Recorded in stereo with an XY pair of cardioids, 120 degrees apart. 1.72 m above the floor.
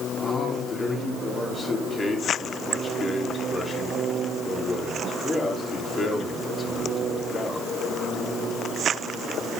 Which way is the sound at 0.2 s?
25° left.